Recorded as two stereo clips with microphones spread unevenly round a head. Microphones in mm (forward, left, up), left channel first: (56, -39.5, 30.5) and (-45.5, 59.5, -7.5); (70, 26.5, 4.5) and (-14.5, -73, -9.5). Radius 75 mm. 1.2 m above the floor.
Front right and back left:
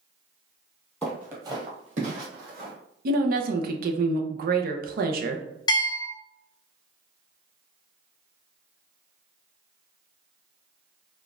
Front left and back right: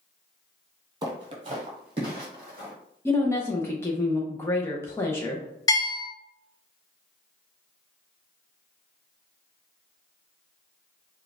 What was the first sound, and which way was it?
Footsteps, 90° right.